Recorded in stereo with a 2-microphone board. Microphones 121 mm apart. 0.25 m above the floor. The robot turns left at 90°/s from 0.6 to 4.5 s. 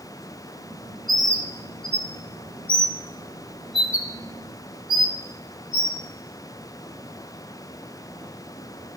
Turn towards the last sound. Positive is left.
turn(degrees=-40)  # may be behind; listen again after turning